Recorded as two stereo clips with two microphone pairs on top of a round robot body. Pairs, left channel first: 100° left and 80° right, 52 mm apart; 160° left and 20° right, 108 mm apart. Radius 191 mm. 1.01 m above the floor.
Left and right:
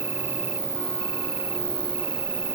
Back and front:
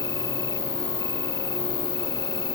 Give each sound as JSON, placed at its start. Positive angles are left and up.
{"t": 0.0, "sound": "an insect", "azimuth_deg": -135}